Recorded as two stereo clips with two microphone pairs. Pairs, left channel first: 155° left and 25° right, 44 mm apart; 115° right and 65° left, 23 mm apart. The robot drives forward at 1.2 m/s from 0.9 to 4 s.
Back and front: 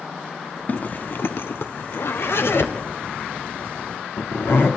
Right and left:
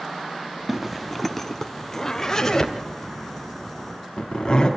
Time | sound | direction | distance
0.7 | a zipper | 135° left | 0.7 m